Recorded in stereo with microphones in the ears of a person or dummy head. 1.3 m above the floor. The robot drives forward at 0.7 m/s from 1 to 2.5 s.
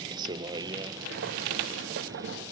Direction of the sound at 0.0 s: 25° right (ahead or behind).